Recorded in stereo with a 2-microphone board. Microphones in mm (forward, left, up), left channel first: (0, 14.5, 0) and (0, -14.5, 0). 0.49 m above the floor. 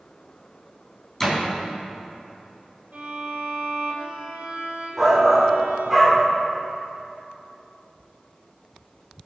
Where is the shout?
5° right (ahead or behind), 1.5 m.